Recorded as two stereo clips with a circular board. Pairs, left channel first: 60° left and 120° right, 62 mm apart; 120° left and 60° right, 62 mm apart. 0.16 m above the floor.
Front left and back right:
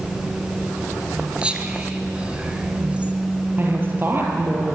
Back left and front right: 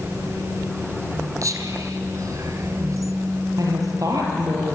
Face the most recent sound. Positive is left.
turn(degrees=-65)